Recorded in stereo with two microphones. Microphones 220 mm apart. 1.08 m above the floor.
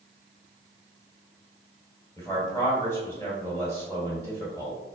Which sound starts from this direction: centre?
A man speaking, at 2.2 s.